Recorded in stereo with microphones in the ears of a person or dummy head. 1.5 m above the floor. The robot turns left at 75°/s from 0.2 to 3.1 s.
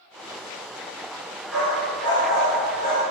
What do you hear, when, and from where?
1.5 s a dog barking: 5° left (ahead or behind), 1.4 m; by 3.0 s 40° left (ahead or behind), 1.4 m